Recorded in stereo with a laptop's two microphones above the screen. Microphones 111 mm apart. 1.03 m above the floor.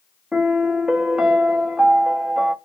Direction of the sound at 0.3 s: 5° right (ahead or behind).